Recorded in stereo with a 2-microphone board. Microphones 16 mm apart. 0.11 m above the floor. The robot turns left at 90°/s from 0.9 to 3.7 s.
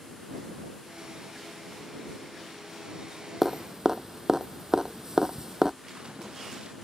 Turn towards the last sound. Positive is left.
turn(degrees=-60)  # may be behind; listen again after turning